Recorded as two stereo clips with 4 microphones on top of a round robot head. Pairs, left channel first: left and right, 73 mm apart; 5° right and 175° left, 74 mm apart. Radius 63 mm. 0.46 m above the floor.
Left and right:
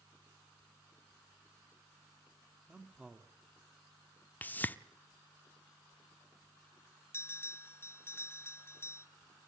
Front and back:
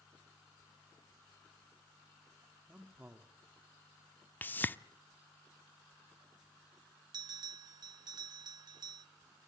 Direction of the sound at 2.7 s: 140° right.